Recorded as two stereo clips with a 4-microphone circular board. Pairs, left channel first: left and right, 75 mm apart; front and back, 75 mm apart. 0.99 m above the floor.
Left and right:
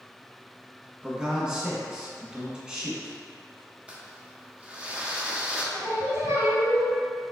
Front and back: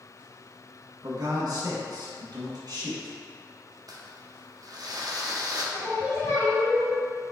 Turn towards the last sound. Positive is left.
turn(degrees=-40)